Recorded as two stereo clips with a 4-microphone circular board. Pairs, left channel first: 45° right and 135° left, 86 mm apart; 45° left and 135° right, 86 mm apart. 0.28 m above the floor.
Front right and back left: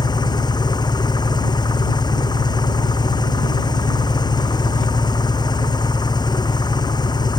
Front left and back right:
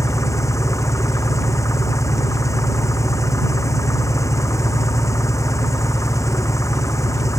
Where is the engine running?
10° right.